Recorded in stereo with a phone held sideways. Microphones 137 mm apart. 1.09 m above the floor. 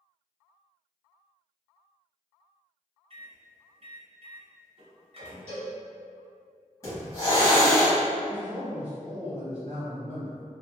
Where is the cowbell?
50° right (ahead or behind), 1.4 m.